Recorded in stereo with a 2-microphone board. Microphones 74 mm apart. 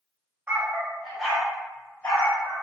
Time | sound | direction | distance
0.5 | a dog barking | 30° right (ahead or behind) | 0.8 m